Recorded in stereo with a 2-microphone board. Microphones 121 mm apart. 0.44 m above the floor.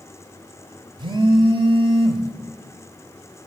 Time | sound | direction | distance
1.0 | a phone buzzing | 40° right (ahead or behind) | 0.5 m